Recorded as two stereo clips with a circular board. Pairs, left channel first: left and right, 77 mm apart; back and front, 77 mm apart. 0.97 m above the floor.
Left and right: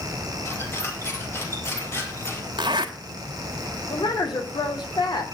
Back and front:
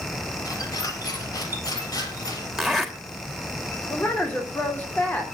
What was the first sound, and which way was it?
A squeak, 145° left.